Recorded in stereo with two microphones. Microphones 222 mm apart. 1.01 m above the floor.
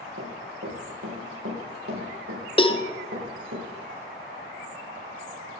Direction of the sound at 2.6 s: 25° left (ahead or behind).